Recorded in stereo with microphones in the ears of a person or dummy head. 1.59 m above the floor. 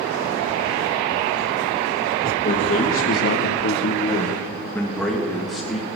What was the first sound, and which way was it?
A man speaking, 40° left (ahead or behind).